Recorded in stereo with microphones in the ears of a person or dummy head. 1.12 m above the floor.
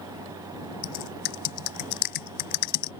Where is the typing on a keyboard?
55° left (ahead or behind).